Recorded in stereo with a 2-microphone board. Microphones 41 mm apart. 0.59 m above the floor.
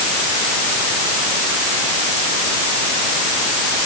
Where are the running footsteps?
I don't hear running footsteps.